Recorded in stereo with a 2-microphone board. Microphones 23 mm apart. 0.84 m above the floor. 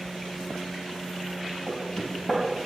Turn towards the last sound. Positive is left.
turn(degrees=25)  # may be behind; listen again after turning